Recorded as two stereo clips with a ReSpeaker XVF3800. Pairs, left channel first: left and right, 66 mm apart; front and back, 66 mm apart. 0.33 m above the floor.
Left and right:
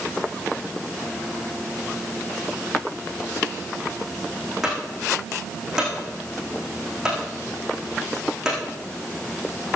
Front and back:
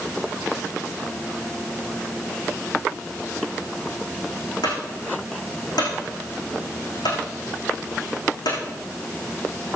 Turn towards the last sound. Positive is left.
turn(degrees=-5)